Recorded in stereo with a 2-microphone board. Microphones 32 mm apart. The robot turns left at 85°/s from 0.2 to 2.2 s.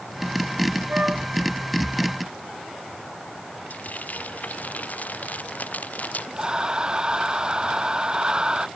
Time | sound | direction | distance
0.9 | a flute | 125° right | ?
3.7 | frying | 55° left (ahead or behind) | ?
6.4 | breathing | 25° right (ahead or behind) | ?